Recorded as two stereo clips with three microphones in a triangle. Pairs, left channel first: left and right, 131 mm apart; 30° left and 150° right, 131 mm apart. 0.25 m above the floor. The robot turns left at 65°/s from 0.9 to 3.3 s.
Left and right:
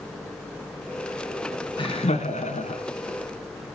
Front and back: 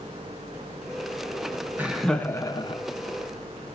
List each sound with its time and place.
1.8 s laughter: 135° left, 2.5 m; by 2.8 s 65° left, 2.5 m